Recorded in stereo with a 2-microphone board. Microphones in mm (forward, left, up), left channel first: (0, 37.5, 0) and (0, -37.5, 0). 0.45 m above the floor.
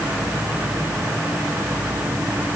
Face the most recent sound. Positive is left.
No sound to turn to.